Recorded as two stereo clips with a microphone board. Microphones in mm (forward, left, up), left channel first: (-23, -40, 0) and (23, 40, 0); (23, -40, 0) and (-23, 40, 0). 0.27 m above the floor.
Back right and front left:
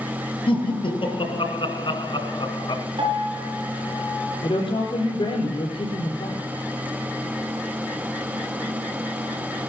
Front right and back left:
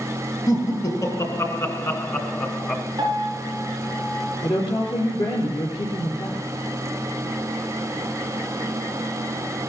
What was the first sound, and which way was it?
Laughter, 110° right.